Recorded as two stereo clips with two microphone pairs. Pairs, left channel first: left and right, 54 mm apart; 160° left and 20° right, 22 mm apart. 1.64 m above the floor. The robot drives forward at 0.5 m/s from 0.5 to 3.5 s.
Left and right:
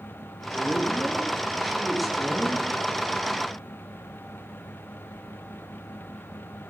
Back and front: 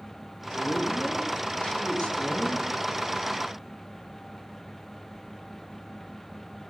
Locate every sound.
0.5 s a man speaking: 175° right, 5.5 m; by 2.6 s straight behind, 6.5 m